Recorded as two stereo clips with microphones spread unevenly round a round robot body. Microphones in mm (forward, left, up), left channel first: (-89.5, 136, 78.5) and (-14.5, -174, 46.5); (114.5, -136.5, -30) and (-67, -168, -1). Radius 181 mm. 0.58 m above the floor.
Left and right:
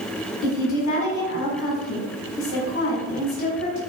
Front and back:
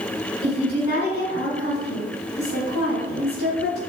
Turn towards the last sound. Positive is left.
turn(degrees=50)